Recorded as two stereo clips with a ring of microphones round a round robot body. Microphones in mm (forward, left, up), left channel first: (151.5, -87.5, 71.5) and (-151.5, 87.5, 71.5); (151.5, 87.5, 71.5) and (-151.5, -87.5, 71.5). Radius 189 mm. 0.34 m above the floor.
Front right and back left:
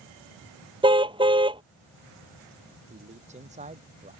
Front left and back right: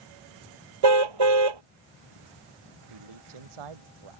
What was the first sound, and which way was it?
A car horn, 135° right.